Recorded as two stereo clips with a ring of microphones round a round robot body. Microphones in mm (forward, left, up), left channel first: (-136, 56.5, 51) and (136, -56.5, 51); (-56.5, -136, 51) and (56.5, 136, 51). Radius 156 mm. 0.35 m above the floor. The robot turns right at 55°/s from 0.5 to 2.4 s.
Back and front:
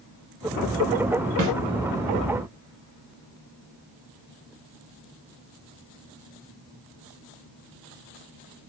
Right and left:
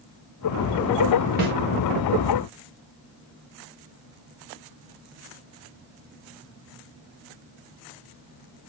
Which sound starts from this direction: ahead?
A snare drum, at 1.4 s.